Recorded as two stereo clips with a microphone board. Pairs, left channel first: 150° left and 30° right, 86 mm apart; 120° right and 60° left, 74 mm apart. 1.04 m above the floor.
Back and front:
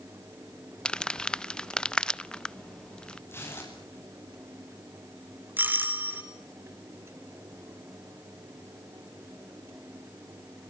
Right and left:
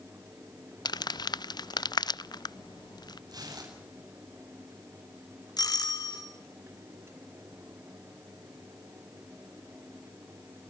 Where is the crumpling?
130° right, 0.6 m.